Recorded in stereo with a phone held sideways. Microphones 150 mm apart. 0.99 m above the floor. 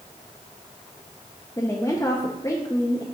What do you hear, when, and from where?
1.6 s a woman speaking: 20° left (ahead or behind), 0.7 m